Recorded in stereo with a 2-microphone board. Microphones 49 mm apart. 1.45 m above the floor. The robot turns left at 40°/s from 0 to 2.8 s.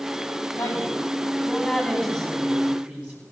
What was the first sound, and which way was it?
A woman speaking, 70° left.